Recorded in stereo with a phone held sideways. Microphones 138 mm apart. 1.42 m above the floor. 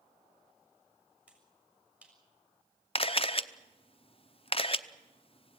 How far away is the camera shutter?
About 0.8 m.